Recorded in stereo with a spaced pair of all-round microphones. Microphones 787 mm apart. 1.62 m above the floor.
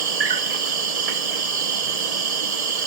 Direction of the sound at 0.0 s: 50° right (ahead or behind).